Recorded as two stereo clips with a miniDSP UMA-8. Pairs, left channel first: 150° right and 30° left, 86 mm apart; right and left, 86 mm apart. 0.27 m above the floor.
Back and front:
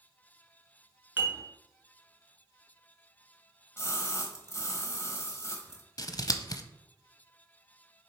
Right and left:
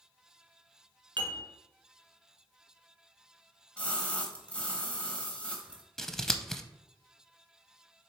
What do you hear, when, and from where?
1.2 s dishes clattering: 90° left, 2.5 m
3.8 s a splash: 150° right, 1.3 m
6.0 s scissors: 170° right, 0.6 m